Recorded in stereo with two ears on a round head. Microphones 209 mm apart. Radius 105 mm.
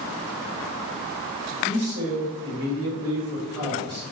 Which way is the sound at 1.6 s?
25° right (ahead or behind).